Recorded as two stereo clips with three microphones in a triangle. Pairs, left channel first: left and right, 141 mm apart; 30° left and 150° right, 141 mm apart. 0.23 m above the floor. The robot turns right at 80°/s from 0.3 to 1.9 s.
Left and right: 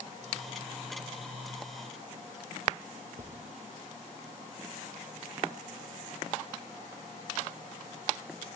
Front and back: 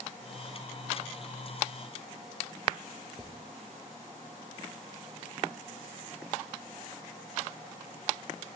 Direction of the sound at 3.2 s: 60° right.